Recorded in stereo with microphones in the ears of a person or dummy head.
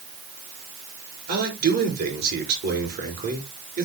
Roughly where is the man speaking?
Right.